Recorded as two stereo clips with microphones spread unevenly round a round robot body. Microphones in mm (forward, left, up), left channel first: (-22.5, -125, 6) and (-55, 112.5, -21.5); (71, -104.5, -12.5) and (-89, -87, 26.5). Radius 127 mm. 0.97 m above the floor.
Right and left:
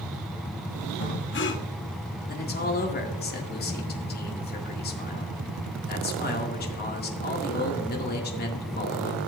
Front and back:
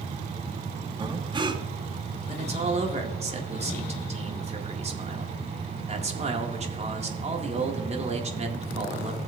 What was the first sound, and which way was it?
Breathing, 125° right.